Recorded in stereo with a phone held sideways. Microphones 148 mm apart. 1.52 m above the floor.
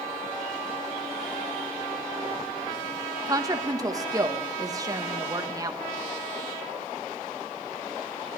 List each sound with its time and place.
3.3 s a woman speaking: 25° right (ahead or behind), 1.2 m